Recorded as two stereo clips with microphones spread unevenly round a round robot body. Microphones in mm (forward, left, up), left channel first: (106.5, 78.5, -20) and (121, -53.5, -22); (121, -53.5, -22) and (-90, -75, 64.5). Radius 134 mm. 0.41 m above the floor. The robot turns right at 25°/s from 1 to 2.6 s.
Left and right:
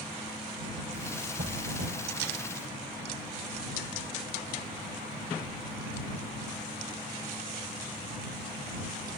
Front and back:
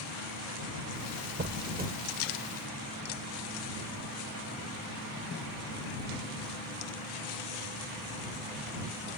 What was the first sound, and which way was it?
A squeak, 125° right.